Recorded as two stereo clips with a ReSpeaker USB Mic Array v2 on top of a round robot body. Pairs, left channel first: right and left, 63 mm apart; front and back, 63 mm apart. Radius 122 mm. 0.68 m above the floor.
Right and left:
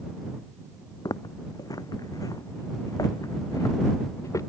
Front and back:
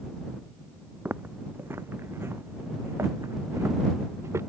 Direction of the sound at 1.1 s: 120° right.